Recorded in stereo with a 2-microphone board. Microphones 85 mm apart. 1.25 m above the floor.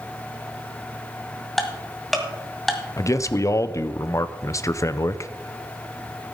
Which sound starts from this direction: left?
A man speaking, at 3.0 s.